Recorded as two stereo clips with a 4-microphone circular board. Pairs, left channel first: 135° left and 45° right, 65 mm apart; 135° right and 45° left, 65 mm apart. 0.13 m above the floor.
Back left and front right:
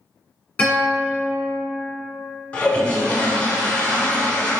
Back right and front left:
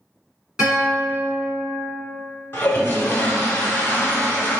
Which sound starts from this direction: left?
A guitar, at 0.6 s.